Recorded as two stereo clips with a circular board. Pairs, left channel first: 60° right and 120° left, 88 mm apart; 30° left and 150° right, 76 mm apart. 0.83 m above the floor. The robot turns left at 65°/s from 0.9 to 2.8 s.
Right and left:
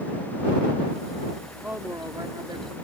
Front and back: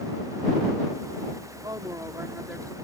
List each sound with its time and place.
1.6 s a woman speaking: 165° right; by 2.7 s 120° left